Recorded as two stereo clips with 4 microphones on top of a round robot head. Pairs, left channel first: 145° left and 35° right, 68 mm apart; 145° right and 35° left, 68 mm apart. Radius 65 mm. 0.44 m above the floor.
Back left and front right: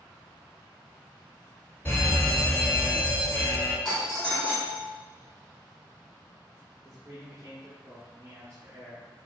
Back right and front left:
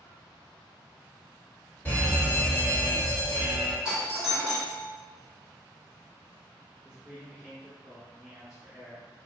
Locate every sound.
1.9 s a fire alarm: 175° left, 1.9 m
3.9 s a doorbell: 75° left, 1.5 m
6.8 s a man speaking: 40° right, 1.0 m